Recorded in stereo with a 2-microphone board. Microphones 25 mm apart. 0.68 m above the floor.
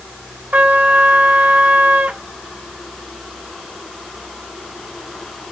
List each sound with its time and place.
0.5 s a trumpet: 75° right (ahead or behind), 1.4 m